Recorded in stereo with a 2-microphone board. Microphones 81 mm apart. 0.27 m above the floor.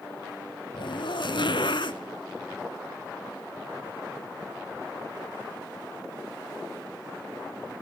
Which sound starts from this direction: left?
A zipper, at 0.7 s.